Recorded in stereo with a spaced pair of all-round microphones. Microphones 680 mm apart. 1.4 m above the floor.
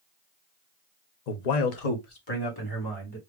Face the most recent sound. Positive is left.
turn(degrees=25)  # may be behind; listen again after turning